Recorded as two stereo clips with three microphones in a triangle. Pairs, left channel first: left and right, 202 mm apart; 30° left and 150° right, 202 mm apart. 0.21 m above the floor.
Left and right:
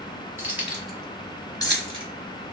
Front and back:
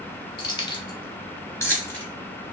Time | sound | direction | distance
0.4 | keys jangling | 20° right | 1.2 m